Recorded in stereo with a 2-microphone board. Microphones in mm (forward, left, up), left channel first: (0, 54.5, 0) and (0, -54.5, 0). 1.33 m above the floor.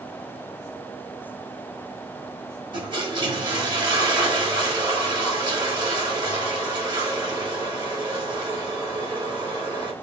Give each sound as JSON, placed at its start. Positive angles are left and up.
{"t": 2.7, "sound": "a toilet flushing", "side_deg": -45, "distance_m": 3.0}